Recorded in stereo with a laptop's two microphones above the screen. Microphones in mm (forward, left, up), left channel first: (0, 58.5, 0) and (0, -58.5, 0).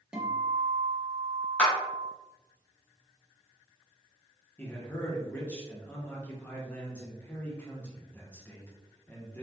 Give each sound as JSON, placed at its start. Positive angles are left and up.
{"t": 0.1, "sound": "a guitar", "side_deg": -5, "distance_m": 0.9}
{"t": 1.6, "sound": "a clap", "side_deg": 10, "distance_m": 1.0}
{"t": 4.6, "sound": "a man speaking", "side_deg": 15, "distance_m": 0.9}